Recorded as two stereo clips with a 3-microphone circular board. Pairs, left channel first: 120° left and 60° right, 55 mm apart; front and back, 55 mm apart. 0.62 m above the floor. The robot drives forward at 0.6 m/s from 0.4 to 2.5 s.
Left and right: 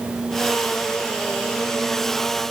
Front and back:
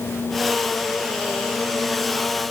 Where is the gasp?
I don't hear a gasp.